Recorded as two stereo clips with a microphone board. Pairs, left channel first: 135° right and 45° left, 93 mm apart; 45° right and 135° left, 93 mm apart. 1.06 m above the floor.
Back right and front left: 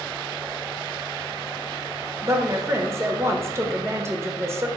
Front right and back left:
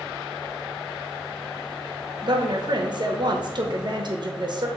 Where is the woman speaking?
105° left, 0.6 m.